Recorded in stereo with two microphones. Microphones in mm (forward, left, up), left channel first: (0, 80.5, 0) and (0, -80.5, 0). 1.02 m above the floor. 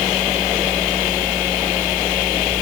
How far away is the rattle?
I don't hear a rattle.